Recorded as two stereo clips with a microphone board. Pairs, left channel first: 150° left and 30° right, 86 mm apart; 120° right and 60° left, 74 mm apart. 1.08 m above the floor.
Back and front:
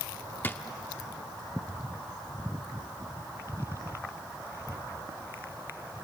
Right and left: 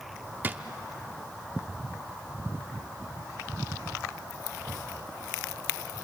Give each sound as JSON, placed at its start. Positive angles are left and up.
{"t": 0.4, "sound": "a drawer", "azimuth_deg": 100, "distance_m": 0.7}